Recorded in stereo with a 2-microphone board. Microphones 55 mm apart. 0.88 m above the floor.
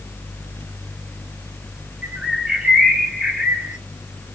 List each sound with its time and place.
2.0 s a bird: 15° right (ahead or behind), 0.9 m